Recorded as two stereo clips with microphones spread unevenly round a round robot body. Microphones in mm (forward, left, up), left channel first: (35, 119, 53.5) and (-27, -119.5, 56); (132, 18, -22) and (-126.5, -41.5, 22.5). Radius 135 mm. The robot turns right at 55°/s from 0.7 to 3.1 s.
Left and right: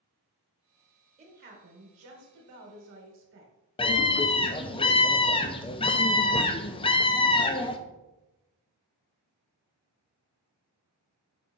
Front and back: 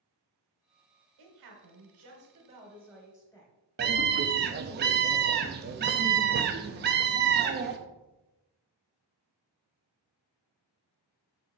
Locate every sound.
1.2 s a woman speaking: 170° right, 2.5 m; by 3.5 s 65° right, 2.5 m
3.8 s a scream: 140° left, 0.6 m